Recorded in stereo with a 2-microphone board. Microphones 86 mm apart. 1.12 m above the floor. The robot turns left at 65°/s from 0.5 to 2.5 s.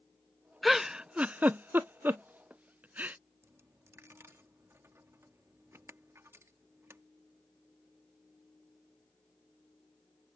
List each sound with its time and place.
0.6 s a giggle: centre (ahead or behind); by 3.2 s 20° right (ahead or behind)
3.4 s a dropped coin: 30° right (ahead or behind)